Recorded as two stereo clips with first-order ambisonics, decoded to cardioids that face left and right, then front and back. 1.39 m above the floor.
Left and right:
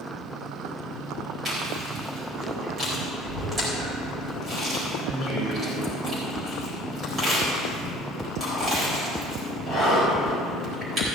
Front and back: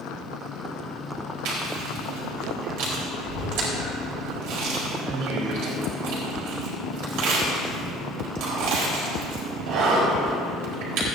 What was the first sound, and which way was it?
Chewing, 155° right.